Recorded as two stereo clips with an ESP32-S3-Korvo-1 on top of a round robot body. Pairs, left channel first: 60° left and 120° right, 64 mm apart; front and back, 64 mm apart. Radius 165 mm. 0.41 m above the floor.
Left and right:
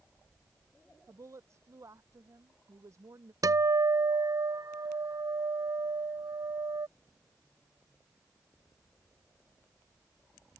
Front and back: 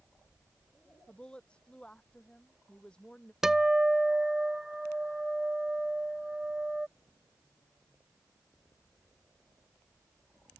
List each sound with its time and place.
1.1 s a woman speaking: 75° right
3.4 s a guitar: 95° right